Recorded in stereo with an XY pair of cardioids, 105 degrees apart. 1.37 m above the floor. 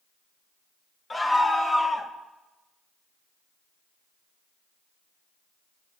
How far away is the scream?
About 2 m.